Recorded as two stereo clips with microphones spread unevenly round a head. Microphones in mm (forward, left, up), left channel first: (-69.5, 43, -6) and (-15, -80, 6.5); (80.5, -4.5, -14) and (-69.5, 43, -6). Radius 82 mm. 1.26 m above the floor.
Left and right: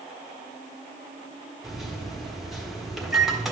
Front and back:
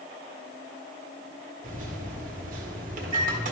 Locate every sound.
1.6 s a microwave: 155° right, 1.4 m